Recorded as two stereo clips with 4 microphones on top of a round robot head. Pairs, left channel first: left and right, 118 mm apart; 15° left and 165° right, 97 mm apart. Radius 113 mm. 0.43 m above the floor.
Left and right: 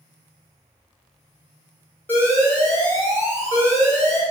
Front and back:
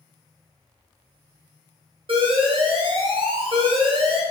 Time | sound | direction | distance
2.1 | an alarm | 165° left | 2.5 m